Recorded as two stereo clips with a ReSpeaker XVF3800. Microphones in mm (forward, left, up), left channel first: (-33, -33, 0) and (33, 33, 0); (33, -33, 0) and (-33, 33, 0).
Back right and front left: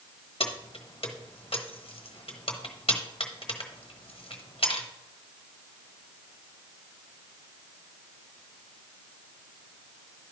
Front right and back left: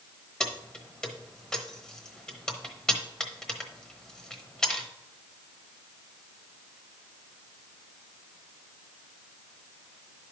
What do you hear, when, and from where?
0.4 s keys jangling: 130° right, 1.0 m